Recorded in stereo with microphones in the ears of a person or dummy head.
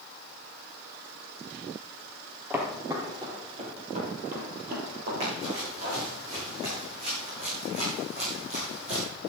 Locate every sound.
2.5 s footsteps: centre (ahead or behind), 2.5 m; by 6.0 s 60° right (ahead or behind), 4 m
5.2 s running footsteps: 40° right (ahead or behind), 6.5 m; by 9.1 s 45° right (ahead or behind), 4.5 m